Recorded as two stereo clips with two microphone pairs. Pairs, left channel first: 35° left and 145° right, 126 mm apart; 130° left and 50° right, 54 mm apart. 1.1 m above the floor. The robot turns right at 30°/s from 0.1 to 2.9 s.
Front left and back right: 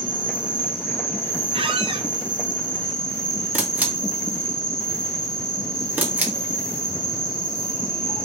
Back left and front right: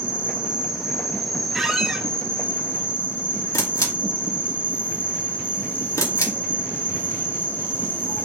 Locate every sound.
0.0 s an insect: straight ahead, 1.2 m; by 8.2 s 85° left, 1.2 m
1.5 s a squeak: 140° right, 0.5 m; by 2.1 s 120° right, 0.5 m
3.5 s a camera shutter: 140° left, 1.0 m